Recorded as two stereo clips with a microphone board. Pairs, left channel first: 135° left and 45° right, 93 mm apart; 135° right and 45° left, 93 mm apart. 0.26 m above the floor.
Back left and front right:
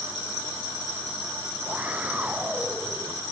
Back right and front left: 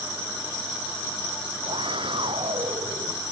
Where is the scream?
30° left.